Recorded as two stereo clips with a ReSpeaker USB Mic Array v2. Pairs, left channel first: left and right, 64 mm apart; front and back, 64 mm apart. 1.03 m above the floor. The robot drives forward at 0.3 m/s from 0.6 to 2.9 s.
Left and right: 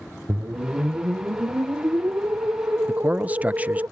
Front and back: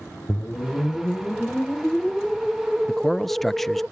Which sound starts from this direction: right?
A man speaking, at 2.9 s.